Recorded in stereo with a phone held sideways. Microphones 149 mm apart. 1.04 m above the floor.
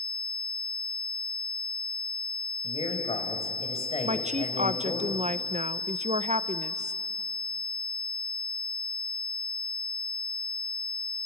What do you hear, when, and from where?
2.6 s a man speaking: 45° left (ahead or behind), 4.5 m
4.0 s a woman speaking: 50° right (ahead or behind), 0.7 m